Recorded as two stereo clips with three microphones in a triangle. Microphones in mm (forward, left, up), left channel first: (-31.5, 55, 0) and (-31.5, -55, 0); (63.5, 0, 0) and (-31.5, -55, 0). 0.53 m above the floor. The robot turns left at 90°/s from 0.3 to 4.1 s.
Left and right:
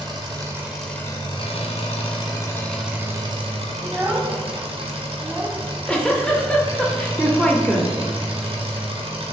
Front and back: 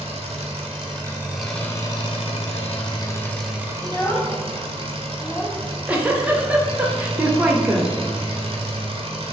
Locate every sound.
0.0 s an engine running: 135° right, 1.0 m; by 9.3 s 120° right, 1.0 m
3.8 s a child speaking: straight ahead, 0.8 m; by 5.5 s 30° right, 0.8 m
5.6 s a giggle: 155° left, 0.6 m